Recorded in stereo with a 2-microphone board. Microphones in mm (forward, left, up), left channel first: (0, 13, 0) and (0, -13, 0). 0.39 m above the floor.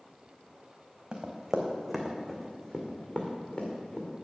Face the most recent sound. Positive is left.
turn(degrees=50)  # may be behind; listen again after turning